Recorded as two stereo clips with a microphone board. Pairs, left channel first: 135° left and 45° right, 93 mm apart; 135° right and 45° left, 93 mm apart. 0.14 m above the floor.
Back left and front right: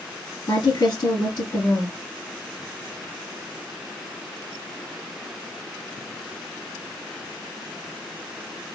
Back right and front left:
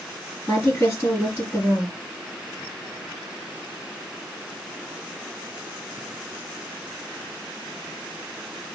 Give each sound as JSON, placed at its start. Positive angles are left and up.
{"t": 0.5, "sound": "a woman speaking", "azimuth_deg": 160, "distance_m": 2.5}